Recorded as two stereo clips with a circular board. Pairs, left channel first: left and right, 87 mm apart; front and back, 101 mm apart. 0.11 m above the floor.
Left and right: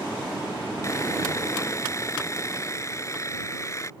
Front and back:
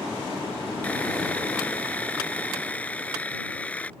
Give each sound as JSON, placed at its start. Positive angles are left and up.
{"t": 0.8, "sound": "sawing", "azimuth_deg": 65}